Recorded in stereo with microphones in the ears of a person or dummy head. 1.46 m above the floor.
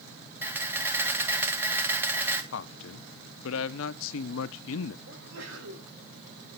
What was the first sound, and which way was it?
A camera shutter, 10° right (ahead or behind).